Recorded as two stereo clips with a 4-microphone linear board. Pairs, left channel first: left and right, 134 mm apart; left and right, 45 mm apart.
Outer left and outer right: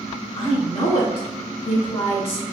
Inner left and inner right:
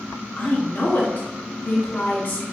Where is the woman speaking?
45° left (ahead or behind), 1.2 m.